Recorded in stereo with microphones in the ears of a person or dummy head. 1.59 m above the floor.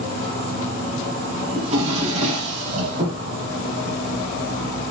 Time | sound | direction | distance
0.0 | an insect | 45° right (ahead or behind) | 2.5 m
1.6 | a drawer | 45° right (ahead or behind) | 3.5 m